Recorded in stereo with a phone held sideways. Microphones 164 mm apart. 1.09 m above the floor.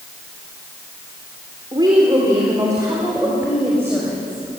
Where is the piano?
I don't hear a piano.